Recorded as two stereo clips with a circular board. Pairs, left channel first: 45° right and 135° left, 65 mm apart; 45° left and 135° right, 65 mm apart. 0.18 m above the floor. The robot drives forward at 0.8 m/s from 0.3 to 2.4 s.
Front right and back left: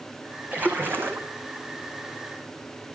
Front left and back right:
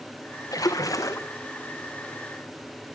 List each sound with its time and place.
0.5 s a splash: 70° left, 2.5 m; by 1.3 s 85° left, 2.5 m